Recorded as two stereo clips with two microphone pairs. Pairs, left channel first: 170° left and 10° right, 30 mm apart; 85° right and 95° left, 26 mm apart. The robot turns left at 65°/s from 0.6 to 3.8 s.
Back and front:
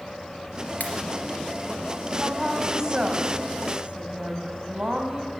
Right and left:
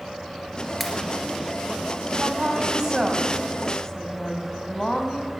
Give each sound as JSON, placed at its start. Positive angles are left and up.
{"t": 0.8, "sound": "a pop", "azimuth_deg": -170, "distance_m": 2.5}
{"t": 2.1, "sound": "a woman speaking", "azimuth_deg": 80, "distance_m": 1.9}